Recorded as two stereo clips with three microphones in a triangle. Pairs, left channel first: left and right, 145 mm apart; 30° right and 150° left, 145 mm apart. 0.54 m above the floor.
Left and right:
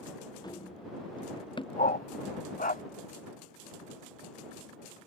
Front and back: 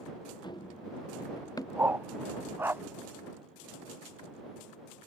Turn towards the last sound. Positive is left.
turn(degrees=75)